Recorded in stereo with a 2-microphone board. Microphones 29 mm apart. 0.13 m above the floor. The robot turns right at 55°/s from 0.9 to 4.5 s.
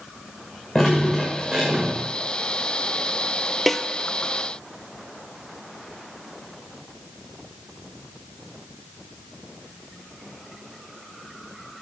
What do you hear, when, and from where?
0.8 s dripping: 155° left, 6 m; by 2.0 s 140° right, 6 m
3.7 s a snare drum: 5° left (ahead or behind), 0.7 m; by 3.8 s 10° left (ahead or behind), 0.7 m